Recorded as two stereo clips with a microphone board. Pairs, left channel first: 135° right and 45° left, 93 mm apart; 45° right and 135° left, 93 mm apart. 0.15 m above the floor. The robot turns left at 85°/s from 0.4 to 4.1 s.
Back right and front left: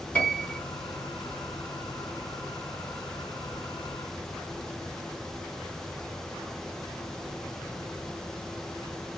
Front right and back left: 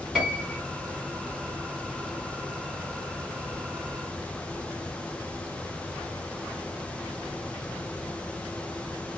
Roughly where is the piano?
Behind right.